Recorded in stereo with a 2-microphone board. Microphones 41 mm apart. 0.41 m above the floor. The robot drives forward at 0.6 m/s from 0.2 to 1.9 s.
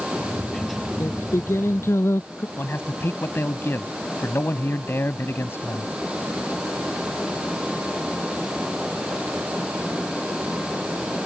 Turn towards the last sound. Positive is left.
turn(degrees=65)  # may be behind; listen again after turning